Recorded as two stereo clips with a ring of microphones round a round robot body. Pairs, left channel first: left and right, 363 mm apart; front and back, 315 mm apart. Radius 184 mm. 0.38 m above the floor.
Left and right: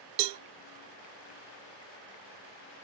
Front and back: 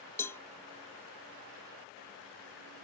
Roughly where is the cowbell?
Right.